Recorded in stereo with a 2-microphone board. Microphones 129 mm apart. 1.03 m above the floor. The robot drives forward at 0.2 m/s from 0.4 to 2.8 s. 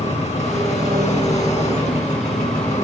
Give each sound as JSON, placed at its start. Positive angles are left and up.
{"t": 0.0, "sound": "an engine running", "side_deg": 60, "distance_m": 9.0}